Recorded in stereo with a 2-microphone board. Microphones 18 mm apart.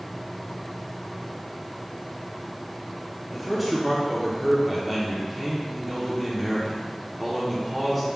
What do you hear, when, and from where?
3.3 s a man speaking: 5° right (ahead or behind), 0.7 m